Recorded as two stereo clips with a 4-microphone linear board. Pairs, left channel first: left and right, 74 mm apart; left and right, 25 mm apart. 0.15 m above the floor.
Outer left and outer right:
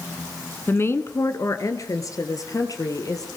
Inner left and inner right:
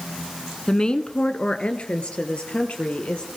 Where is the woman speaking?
30° left (ahead or behind), 1.2 m; by 3.3 s 55° left (ahead or behind), 3.5 m.